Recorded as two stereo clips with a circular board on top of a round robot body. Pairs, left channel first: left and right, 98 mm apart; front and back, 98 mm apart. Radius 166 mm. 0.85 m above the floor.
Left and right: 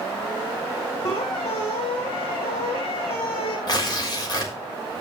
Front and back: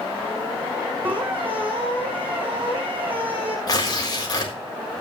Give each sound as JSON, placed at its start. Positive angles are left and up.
{"t": 1.1, "sound": "a squeak", "azimuth_deg": 105, "distance_m": 4.5}
{"t": 3.7, "sound": "tearing paper", "azimuth_deg": 45, "distance_m": 4.0}